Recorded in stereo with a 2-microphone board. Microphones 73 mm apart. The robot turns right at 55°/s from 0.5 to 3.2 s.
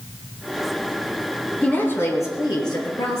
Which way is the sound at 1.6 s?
20° left.